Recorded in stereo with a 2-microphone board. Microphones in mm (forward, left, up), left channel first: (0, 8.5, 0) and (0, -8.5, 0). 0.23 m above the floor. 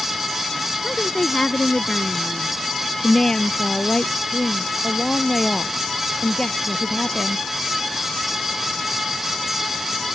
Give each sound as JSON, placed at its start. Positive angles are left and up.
{"t": 0.8, "sound": "a woman speaking", "side_deg": 55}
{"t": 3.0, "sound": "a woman speaking", "side_deg": 35}